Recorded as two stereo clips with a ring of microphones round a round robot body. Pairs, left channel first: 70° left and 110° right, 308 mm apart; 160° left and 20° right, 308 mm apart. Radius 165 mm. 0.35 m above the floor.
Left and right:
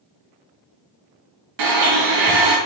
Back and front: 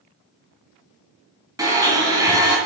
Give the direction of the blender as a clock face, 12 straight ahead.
3 o'clock.